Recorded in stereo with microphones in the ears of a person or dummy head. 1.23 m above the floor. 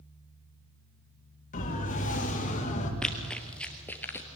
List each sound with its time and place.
1.5 s a siren: 40° left (ahead or behind), 3 m; by 2.9 s 35° left (ahead or behind), 2 m
3.0 s running footsteps: 5° left (ahead or behind), 1.9 m; by 4.3 s 15° left (ahead or behind), 1.5 m